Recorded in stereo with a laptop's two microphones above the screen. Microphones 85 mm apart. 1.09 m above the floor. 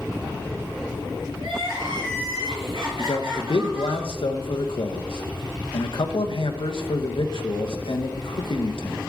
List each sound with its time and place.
1.4 s crying: 75° right (ahead or behind), 4 m
3.0 s a man speaking: 75° left (ahead or behind), 0.9 m